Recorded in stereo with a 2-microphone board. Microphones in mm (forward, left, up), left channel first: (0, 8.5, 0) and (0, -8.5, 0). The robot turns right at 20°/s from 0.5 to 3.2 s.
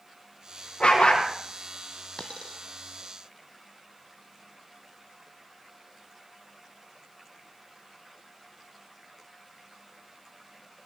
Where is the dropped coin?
60° left (ahead or behind), 1.6 m; by 2.6 s 70° left (ahead or behind), 1.6 m.